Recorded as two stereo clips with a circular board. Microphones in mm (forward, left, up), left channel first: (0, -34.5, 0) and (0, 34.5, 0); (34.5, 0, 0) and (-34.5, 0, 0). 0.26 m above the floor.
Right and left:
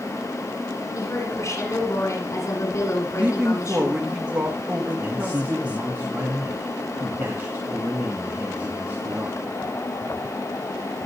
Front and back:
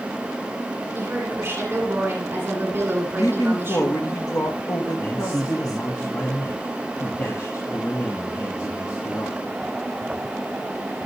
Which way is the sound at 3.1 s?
20° left.